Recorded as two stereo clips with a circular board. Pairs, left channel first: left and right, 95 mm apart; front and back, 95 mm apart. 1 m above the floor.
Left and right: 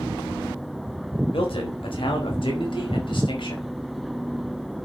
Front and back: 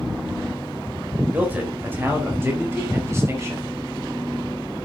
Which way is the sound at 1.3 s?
105° left.